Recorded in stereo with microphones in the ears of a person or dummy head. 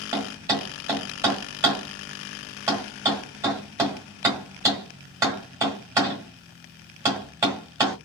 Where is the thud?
20° right (ahead or behind), 1.7 m.